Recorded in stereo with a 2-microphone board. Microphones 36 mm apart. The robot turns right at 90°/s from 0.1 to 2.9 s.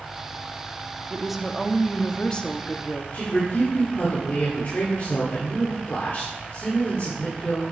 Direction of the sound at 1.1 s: 15° right (ahead or behind).